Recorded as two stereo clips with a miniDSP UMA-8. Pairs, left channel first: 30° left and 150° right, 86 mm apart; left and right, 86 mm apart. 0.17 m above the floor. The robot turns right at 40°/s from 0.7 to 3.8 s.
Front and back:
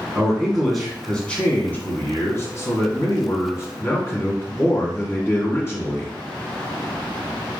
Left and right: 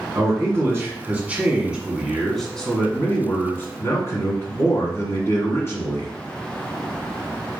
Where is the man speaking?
60° right, 1.5 m; by 6.1 s 65° left, 1.5 m.